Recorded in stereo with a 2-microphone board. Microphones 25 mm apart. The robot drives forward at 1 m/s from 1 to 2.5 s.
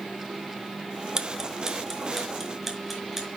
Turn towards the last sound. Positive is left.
turn(degrees=-10)  # may be behind; listen again after turning